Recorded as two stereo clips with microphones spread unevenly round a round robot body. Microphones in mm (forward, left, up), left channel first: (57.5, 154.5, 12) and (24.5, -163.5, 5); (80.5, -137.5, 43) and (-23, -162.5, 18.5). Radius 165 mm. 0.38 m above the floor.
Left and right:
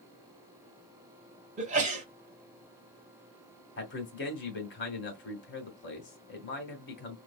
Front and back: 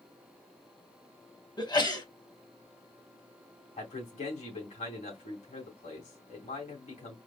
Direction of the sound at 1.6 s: 35° right.